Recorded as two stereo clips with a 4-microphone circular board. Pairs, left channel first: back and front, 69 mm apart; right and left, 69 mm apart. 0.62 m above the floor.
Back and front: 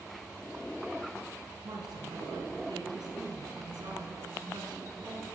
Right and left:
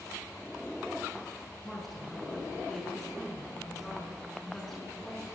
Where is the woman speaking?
5° right, 7 m.